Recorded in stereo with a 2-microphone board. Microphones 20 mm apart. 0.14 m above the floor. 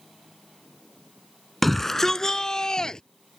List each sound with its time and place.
1.6 s a shout: 10° left (ahead or behind); by 3.0 s 45° left (ahead or behind)